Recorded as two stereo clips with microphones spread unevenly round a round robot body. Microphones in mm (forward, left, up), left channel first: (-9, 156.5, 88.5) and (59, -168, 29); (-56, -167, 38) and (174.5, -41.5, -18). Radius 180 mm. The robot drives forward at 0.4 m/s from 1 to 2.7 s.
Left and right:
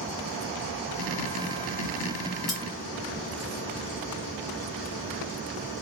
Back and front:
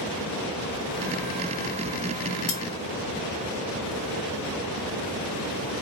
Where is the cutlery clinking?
170° right, 1.2 m.